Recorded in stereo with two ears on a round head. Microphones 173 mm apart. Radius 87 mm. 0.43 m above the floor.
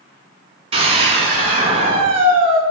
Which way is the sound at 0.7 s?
30° right (ahead or behind).